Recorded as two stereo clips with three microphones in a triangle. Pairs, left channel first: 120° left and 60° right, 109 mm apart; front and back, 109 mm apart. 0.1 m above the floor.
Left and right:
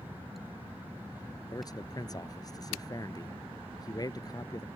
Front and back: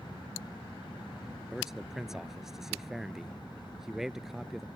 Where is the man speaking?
95° left.